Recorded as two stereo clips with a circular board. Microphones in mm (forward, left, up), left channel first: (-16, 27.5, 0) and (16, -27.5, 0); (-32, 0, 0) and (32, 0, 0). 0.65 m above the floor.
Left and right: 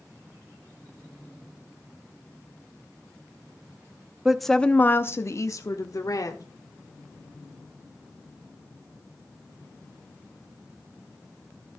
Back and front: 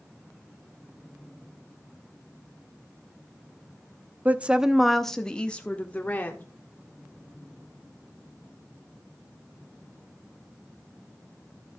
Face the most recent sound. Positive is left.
turn(degrees=120)